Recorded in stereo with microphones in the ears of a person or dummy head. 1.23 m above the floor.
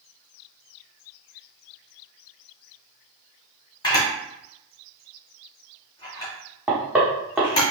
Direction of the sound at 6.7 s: 5° right (ahead or behind).